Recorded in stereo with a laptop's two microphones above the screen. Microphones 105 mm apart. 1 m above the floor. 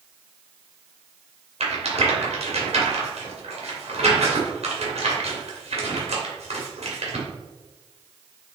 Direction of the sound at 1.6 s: 80° right.